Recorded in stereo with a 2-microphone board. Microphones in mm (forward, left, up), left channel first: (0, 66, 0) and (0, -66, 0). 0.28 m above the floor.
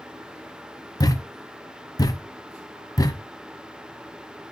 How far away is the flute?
No flute in this recording.